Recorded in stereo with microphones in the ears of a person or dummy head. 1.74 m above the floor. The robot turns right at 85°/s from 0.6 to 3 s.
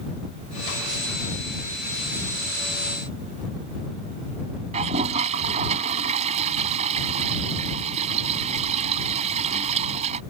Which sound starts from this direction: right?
A toilet flushing, at 4.7 s.